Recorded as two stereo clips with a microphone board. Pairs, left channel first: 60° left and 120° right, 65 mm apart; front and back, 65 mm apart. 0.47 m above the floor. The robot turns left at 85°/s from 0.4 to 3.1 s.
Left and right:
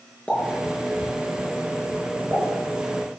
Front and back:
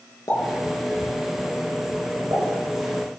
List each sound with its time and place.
0.3 s a pop: 10° right, 5.5 m; by 2.4 s 175° left, 5.5 m